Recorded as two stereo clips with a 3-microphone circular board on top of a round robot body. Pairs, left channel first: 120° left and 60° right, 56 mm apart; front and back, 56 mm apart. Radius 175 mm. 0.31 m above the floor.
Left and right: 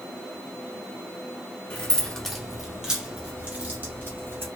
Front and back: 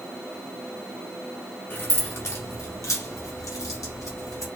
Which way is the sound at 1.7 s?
50° left.